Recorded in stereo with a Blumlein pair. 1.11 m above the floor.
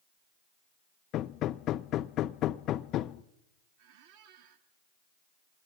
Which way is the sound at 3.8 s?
50° right.